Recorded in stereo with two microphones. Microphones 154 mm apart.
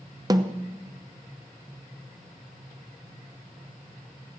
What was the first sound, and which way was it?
A snare drum, 25° right (ahead or behind).